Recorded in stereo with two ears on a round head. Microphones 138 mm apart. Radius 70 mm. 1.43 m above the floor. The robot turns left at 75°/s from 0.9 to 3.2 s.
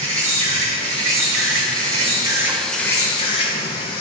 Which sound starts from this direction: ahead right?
An insect, at 0.0 s.